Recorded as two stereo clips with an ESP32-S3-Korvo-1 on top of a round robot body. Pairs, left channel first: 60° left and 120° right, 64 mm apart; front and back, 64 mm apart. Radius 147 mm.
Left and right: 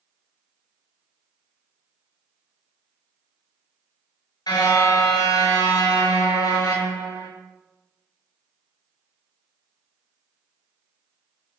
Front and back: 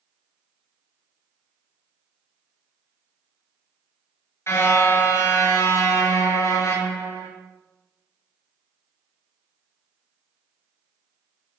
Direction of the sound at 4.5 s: 50° left.